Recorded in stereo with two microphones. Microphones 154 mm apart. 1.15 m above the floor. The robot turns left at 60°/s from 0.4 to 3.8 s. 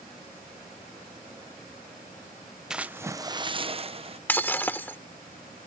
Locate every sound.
2.7 s a splash: 5° right; by 4.2 s 70° right
4.3 s breaking glass: 10° left (ahead or behind)